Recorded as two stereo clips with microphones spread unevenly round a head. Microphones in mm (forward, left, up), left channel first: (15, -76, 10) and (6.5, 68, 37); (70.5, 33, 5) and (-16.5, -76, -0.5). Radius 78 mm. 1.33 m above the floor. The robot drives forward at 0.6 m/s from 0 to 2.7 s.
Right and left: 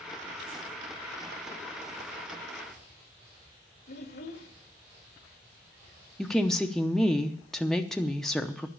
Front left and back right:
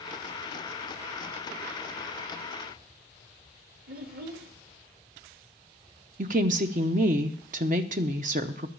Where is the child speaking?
115° right, 1.5 m.